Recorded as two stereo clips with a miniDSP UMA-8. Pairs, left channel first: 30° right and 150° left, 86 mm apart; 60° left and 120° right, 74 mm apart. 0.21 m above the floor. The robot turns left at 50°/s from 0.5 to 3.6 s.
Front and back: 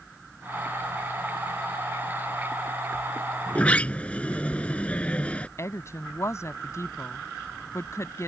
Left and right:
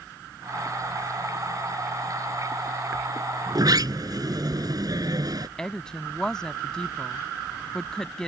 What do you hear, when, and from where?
3.5 s a sliding door: 95° right; by 5.5 s 105° right
5.6 s a woman speaking: 15° right